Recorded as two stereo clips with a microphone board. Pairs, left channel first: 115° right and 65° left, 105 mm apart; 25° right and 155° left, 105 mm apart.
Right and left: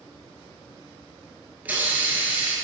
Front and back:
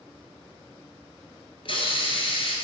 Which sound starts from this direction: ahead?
A hiss, at 1.6 s.